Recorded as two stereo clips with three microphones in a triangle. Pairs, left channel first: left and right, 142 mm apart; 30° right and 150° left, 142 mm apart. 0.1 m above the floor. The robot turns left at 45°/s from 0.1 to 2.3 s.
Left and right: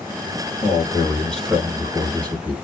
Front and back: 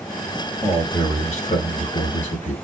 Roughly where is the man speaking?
Ahead left.